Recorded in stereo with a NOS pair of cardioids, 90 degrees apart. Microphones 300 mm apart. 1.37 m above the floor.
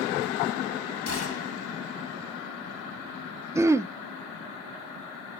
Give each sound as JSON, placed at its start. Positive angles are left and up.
{"t": 1.1, "sound": "a gunshot", "azimuth_deg": 45, "distance_m": 4.0}
{"t": 3.5, "sound": "throat clearing", "azimuth_deg": -10, "distance_m": 0.8}